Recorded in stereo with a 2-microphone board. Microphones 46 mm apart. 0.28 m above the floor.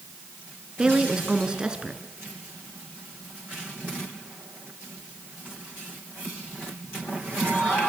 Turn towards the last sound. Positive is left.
turn(degrees=-15)  # may be behind; listen again after turning